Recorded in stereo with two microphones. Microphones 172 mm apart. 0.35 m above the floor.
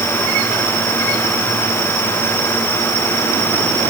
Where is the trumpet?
I don't hear a trumpet.